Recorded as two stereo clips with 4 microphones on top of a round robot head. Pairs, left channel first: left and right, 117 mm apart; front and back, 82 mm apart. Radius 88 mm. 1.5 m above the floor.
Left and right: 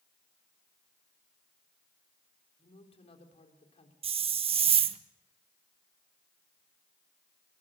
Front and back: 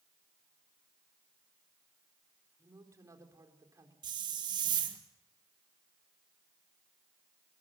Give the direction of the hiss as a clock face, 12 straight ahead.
4 o'clock.